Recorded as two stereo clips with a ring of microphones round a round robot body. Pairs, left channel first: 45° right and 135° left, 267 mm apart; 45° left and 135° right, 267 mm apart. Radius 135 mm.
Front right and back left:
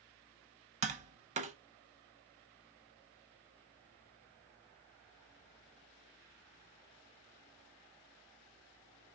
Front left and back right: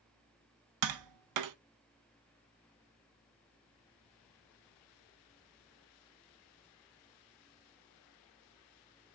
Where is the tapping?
160° right, 0.6 m.